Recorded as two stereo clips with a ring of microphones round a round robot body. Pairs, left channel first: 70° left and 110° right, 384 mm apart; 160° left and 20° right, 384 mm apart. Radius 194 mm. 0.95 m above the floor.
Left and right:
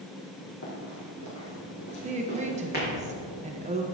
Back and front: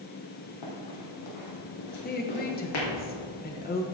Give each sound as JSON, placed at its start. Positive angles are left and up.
{"t": 0.6, "sound": "running footsteps", "azimuth_deg": 120, "distance_m": 2.5}
{"t": 2.0, "sound": "a woman speaking", "azimuth_deg": -165, "distance_m": 0.9}